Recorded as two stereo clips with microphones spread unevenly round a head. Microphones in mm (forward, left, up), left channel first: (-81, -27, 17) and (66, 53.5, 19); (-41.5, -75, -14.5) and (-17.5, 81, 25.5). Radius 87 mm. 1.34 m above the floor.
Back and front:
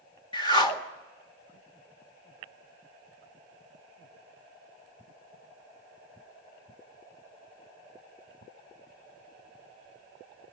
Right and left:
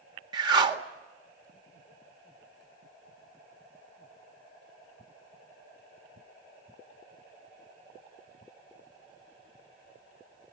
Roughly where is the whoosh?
Behind left.